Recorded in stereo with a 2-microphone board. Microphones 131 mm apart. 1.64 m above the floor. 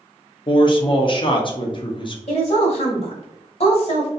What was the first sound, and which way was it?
A man speaking, 40° left (ahead or behind).